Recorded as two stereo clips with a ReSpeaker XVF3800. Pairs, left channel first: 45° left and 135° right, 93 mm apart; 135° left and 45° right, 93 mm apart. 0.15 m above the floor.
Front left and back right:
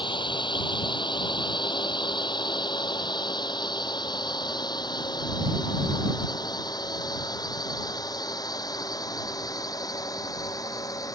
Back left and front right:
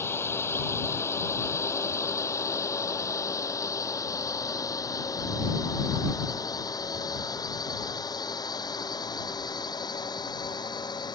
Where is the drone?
70° left; by 11.2 s 95° left.